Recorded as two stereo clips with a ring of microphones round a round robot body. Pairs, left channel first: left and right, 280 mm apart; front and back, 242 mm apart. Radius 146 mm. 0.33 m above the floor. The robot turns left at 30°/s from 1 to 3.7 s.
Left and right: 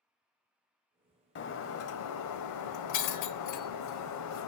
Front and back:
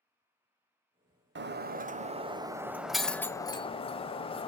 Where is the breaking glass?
140° left, 0.9 m; by 4.5 s 70° left, 0.9 m.